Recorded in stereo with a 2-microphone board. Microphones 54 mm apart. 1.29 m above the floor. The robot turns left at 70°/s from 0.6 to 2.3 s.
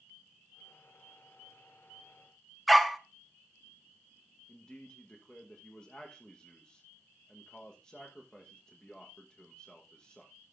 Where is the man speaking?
20° left (ahead or behind), 1.2 m.